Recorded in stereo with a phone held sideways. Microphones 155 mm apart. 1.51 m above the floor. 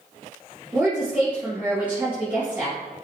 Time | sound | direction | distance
0.7 | a woman speaking | 10° right (ahead or behind) | 1.8 m